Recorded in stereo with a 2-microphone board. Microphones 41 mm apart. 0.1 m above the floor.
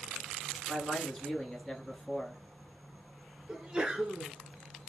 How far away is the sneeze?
About 1.2 m.